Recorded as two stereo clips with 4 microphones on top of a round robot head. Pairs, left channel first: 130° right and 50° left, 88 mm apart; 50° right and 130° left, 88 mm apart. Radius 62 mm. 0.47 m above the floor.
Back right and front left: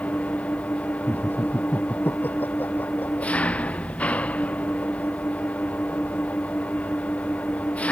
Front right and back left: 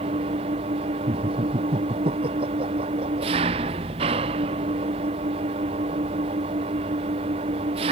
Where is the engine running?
150° left.